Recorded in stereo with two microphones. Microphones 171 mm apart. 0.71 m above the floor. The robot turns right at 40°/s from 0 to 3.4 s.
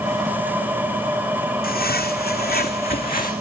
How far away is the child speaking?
I don't hear a child speaking.